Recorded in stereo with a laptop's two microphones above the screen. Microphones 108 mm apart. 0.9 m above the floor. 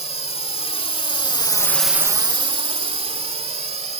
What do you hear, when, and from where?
0.0 s a drone: 75° left (ahead or behind); by 4.0 s 80° right